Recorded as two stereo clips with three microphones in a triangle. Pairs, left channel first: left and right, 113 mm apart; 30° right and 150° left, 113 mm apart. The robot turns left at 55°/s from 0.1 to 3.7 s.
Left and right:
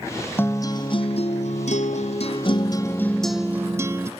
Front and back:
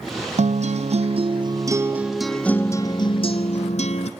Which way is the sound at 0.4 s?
160° left.